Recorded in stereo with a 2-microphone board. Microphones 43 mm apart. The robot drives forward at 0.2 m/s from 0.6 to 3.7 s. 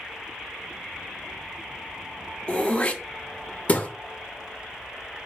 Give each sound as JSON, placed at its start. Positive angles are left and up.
{"t": 2.5, "sound": "throat clearing", "side_deg": 30, "distance_m": 0.6}